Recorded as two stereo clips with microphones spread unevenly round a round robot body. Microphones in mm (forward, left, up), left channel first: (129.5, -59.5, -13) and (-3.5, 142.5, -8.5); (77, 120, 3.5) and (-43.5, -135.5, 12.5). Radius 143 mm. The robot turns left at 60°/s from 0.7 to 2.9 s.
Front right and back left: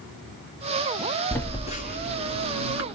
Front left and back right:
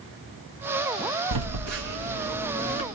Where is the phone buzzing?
135° right, 2 m; by 2.8 s 130° left, 2 m.